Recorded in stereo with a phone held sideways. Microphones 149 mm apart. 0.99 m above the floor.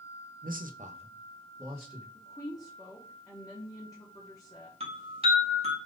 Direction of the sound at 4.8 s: 40° right (ahead or behind).